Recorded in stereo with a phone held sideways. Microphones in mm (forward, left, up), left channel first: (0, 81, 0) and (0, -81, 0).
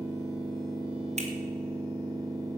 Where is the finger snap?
45° right (ahead or behind), 2 m.